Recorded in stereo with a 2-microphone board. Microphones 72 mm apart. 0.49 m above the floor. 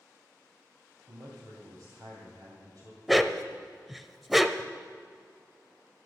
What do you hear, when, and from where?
1.1 s a man speaking: 60° right (ahead or behind), 2.5 m
3.1 s a dog barking: centre (ahead or behind), 0.6 m